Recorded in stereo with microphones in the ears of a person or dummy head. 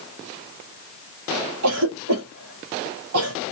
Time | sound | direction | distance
1.6 | a cough | 80° right | 1.7 m